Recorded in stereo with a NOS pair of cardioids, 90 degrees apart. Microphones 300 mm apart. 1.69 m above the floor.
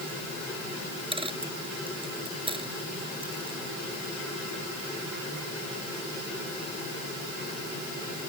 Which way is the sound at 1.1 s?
15° right.